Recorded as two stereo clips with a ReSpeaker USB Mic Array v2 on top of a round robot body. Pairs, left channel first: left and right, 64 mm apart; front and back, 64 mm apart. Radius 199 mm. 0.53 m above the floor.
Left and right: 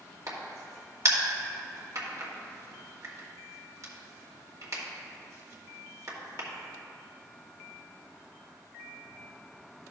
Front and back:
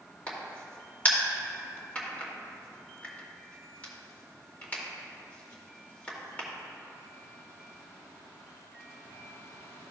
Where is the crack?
65° right, 2 m.